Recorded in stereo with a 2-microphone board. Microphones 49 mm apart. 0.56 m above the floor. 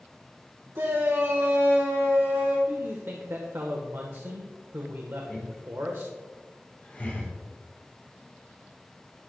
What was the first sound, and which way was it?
A shout, 65° right (ahead or behind).